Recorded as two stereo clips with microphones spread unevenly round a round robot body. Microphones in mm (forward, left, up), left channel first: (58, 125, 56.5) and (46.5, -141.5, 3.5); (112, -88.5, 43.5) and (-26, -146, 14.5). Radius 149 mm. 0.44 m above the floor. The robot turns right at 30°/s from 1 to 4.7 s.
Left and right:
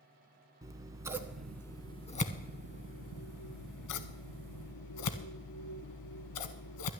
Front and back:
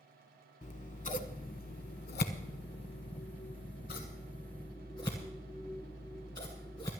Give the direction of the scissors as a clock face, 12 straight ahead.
12 o'clock.